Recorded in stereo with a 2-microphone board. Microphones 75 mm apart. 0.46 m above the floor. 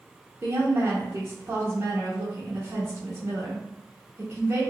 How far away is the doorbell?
I don't hear a doorbell.